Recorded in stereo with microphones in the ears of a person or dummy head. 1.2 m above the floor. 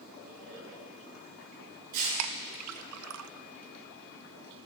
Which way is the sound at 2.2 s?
85° right.